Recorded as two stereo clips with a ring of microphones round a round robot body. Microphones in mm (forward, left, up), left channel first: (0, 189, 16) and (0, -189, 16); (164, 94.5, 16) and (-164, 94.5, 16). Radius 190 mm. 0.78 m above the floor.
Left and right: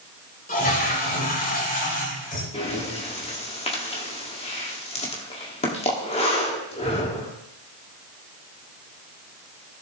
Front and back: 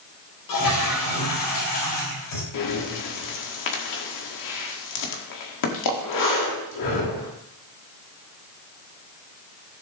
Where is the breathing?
15° left, 1.9 m.